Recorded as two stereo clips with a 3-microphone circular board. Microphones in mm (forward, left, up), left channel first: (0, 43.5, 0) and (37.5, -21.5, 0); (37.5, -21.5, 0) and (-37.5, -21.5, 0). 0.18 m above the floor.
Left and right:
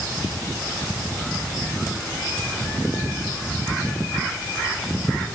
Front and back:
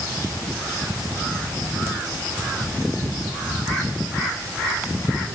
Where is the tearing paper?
No tearing paper in this recording.